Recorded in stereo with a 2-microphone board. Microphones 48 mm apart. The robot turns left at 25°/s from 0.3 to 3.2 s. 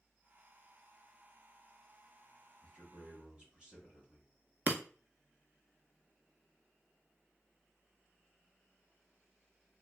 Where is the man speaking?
25° right (ahead or behind), 1.6 m; by 4.3 s 20° right (ahead or behind), 1.6 m.